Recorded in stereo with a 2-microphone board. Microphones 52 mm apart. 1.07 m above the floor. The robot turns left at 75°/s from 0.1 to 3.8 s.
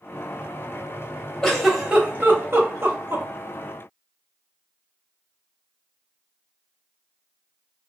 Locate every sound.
1.4 s a giggle: 10° left (ahead or behind), 0.8 m; by 3.2 s 40° right (ahead or behind), 0.8 m